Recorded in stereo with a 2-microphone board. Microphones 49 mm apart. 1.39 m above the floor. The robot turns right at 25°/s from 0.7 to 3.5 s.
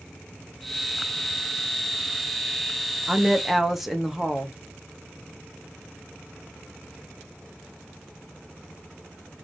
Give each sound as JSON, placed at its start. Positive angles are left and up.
{"t": 3.1, "sound": "a woman speaking", "side_deg": -15, "distance_m": 0.8}